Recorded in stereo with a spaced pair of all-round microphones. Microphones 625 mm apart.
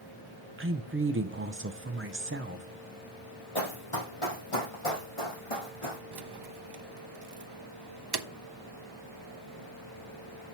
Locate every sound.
0.6 s a woman speaking: 20° right (ahead or behind), 0.5 m
3.5 s running footsteps: 50° left (ahead or behind), 2 m; by 6.0 s 55° left (ahead or behind), 3.5 m
6.1 s keys jangling: 40° right (ahead or behind), 0.6 m